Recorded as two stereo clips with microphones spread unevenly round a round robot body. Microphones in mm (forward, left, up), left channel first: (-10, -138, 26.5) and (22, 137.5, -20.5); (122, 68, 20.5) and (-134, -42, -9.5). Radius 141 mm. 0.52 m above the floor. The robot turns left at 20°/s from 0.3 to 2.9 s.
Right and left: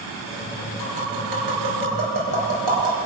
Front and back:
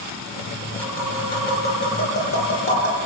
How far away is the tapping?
About 6 m.